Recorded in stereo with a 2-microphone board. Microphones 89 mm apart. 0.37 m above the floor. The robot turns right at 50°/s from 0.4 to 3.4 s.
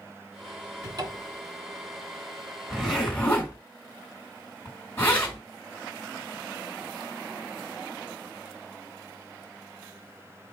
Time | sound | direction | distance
0.8 | a cupboard door | 50° right (ahead or behind) | 1.0 m
2.7 | a zipper | 5° right (ahead or behind) | 2.5 m